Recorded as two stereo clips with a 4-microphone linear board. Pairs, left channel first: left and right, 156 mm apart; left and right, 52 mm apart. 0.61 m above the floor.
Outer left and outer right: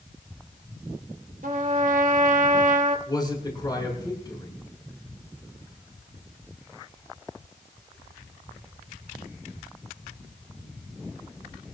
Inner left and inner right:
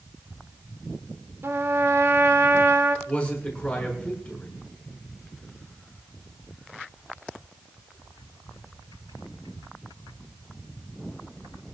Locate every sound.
1.4 s a trumpet: 60° right (ahead or behind), 1.6 m
3.1 s a man speaking: 30° left (ahead or behind), 6.5 m